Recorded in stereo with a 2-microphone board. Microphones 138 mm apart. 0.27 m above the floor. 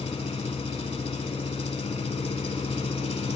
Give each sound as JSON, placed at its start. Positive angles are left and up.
{"t": 0.0, "sound": "an engine running", "side_deg": 50, "distance_m": 0.8}